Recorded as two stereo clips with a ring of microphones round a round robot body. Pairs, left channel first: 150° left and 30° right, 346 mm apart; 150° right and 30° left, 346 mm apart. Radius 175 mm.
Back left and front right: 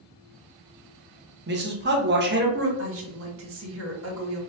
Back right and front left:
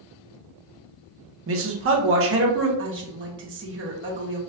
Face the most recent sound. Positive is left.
turn(degrees=-5)